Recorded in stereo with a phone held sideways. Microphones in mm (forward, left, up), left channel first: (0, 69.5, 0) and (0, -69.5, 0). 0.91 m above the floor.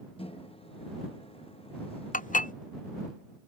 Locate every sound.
0.2 s a microwave: 40° left (ahead or behind)
2.1 s dishes clattering: 70° left (ahead or behind)